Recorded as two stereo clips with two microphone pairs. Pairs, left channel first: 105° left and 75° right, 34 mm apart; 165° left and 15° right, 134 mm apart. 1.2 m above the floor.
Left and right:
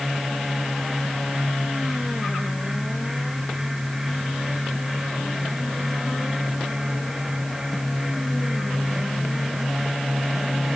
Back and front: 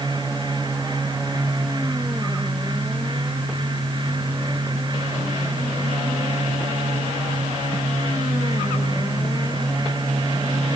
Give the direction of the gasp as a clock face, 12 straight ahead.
No gasp in this recording.